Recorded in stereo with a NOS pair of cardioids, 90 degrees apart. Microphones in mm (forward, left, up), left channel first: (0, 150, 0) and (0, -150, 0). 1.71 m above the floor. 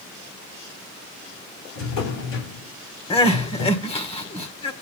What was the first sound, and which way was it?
A drawer, 70° left.